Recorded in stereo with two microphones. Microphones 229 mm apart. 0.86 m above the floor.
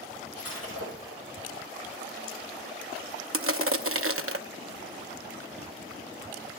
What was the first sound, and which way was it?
Breaking glass, 85° left.